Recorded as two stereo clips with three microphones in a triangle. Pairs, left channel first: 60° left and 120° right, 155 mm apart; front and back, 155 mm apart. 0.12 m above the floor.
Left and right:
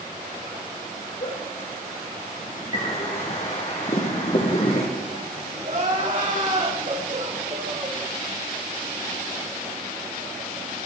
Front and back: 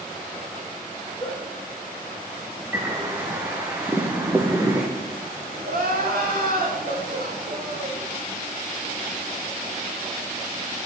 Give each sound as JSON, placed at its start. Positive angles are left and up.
{"t": 1.2, "sound": "a giggle", "azimuth_deg": 75, "distance_m": 6.0}
{"t": 2.7, "sound": "a bird", "azimuth_deg": 105, "distance_m": 3.0}
{"t": 5.6, "sound": "crying", "azimuth_deg": -160, "distance_m": 6.0}